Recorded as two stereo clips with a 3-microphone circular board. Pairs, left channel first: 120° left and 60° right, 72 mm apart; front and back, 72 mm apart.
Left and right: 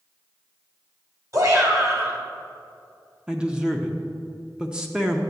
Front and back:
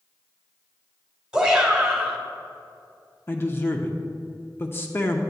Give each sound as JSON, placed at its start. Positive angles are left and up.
{"t": 1.3, "sound": "a shout", "azimuth_deg": -100, "distance_m": 2.5}
{"t": 3.3, "sound": "a man speaking", "azimuth_deg": 5, "distance_m": 0.7}